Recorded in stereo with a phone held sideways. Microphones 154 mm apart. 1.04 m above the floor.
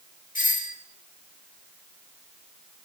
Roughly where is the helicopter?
No helicopter in this recording.